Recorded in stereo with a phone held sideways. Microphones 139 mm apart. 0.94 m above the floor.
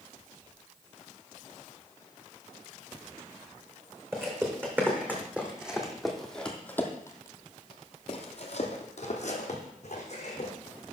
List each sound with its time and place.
4.1 s footsteps: 20° right (ahead or behind), 2.5 m; by 10.5 s 55° left (ahead or behind), 2.5 m